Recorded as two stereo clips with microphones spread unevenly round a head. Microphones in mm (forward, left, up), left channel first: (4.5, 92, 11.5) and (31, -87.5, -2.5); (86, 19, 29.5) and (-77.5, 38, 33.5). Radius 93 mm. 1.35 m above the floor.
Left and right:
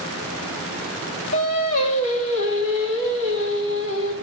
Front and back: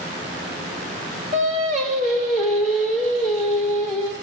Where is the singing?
125° left, 2.5 m.